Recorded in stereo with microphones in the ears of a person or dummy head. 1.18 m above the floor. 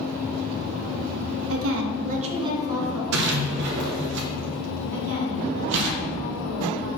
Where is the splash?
60° right (ahead or behind), 0.9 m.